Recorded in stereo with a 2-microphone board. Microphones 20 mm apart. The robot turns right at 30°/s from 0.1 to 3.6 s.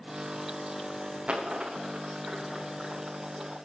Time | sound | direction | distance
1.3 | a dropped coin | 80° right | 3 m